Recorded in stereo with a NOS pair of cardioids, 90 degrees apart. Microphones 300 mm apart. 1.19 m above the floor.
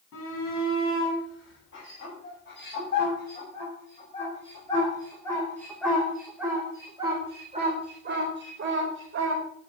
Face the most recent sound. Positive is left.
turn(degrees=-45)